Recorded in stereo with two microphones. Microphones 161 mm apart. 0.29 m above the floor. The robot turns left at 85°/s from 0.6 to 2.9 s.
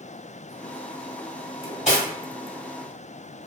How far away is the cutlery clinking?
About 0.8 m.